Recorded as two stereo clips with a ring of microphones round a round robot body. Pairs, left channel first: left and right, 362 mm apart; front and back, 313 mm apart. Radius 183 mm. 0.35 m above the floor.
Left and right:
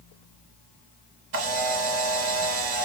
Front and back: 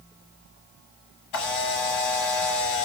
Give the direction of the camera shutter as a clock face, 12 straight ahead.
1 o'clock.